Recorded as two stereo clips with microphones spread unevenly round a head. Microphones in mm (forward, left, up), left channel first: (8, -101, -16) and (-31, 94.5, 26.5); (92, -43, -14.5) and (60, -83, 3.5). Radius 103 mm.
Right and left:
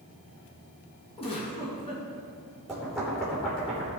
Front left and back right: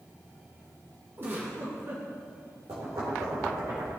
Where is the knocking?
170° right, 3 m.